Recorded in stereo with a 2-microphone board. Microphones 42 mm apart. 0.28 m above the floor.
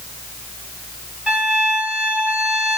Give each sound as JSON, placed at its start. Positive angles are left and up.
{"t": 1.3, "sound": "a violin", "side_deg": -20, "distance_m": 2.0}